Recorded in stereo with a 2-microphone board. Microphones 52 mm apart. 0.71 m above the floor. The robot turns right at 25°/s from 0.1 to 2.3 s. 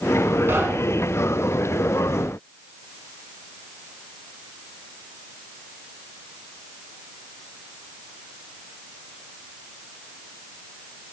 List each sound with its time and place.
0.5 s knocking: 45° right (ahead or behind), 7.5 m; by 1.1 s 30° right (ahead or behind), 7.5 m